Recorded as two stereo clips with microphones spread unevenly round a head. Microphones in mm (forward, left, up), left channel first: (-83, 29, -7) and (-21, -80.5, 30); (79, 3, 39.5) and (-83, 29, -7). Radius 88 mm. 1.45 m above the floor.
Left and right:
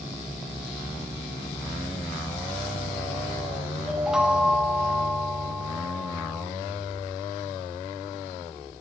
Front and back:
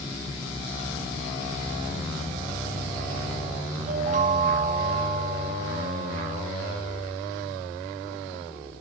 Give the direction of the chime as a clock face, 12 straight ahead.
5 o'clock.